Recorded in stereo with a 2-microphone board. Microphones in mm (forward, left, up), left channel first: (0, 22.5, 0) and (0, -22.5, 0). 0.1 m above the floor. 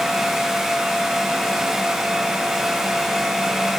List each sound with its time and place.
Only background noise.